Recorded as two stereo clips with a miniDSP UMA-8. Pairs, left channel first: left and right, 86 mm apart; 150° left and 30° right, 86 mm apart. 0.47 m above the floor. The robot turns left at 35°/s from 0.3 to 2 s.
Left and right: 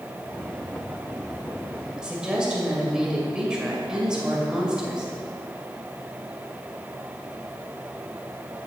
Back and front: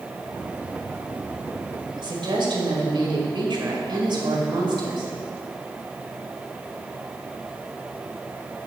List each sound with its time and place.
2.0 s a woman speaking: 10° right, 2 m